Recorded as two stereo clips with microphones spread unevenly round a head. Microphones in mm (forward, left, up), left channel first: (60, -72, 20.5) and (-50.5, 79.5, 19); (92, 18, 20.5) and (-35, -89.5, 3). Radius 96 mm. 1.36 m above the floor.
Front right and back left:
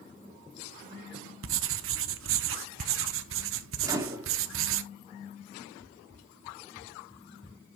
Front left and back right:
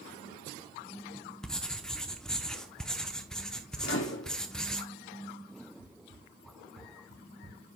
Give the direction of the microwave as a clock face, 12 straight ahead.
10 o'clock.